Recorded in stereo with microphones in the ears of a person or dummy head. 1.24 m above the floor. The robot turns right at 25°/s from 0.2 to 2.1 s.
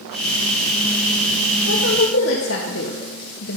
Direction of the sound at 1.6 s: 75° left (ahead or behind).